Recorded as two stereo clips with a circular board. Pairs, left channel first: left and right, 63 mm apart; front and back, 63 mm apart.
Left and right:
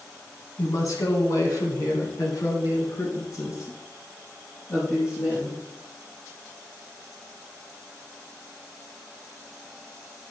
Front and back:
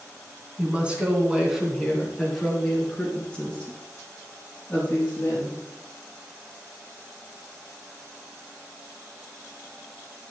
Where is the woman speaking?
115° left, 2.5 m; by 5.6 s 55° left, 4.5 m.